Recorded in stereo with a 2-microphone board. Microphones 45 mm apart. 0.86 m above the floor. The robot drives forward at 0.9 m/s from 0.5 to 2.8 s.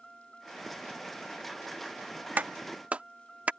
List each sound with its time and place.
0.0 s a vehicle: 20° left (ahead or behind)
2.4 s a clap: 45° right (ahead or behind); by 3.5 s 35° right (ahead or behind)